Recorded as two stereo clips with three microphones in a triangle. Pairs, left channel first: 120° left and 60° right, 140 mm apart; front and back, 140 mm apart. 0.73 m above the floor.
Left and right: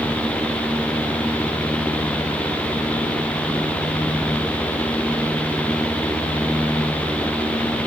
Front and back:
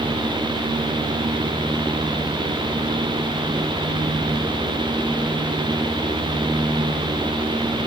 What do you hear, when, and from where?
Only background noise.